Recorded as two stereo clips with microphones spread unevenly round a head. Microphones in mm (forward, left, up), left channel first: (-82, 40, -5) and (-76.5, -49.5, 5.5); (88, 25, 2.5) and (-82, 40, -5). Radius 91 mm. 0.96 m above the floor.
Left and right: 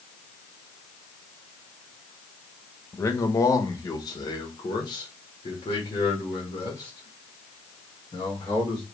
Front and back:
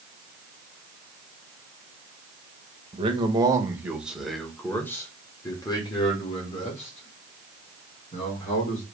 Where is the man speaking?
130° left, 1.1 m; by 8.8 s 40° left, 3 m.